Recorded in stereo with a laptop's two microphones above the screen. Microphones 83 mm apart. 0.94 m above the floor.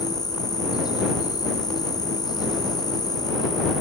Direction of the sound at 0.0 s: 50° left (ahead or behind).